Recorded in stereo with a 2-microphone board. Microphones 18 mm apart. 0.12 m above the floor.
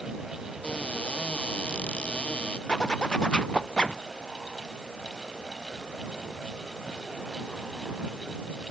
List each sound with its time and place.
0.6 s a cupboard door: 80° left
2.7 s a zipper: 55° left (ahead or behind)